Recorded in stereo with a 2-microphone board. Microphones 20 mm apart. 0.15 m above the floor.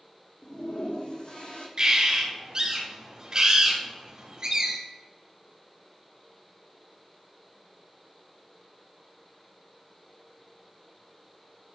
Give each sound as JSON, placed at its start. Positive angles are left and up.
{"t": 0.4, "sound": "a toilet flushing", "side_deg": 60, "distance_m": 2.0}
{"t": 1.8, "sound": "a bird", "side_deg": -40, "distance_m": 2.5}